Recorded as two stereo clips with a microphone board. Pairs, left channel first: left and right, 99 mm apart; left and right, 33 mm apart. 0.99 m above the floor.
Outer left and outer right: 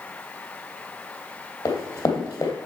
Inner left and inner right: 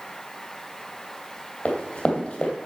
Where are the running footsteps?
35° left (ahead or behind), 2 m.